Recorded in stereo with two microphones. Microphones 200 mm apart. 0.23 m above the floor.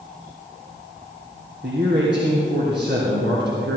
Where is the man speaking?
60° right (ahead or behind), 2 m.